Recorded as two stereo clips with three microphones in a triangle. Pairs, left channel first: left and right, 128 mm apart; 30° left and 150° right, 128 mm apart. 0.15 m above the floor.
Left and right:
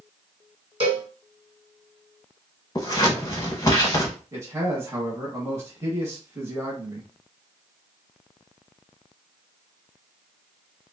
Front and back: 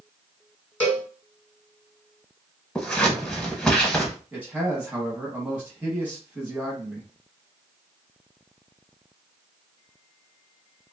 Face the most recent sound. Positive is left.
turn(degrees=-95)